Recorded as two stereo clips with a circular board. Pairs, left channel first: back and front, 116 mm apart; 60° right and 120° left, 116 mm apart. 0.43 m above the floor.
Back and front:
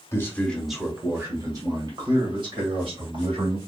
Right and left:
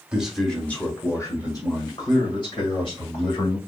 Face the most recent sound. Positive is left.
turn(degrees=-25)